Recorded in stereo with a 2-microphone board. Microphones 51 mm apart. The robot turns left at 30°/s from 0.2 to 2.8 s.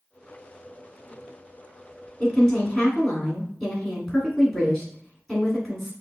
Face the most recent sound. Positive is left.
turn(degrees=0)  # may be behind; listen again after turning